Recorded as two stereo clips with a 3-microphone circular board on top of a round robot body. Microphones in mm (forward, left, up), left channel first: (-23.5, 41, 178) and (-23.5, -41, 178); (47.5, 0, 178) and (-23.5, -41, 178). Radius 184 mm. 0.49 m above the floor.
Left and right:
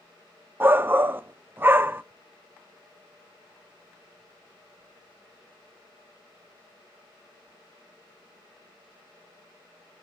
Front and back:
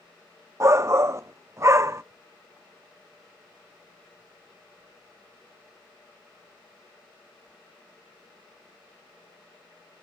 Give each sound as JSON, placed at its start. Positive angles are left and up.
{"t": 0.6, "sound": "a shout", "azimuth_deg": -135, "distance_m": 0.7}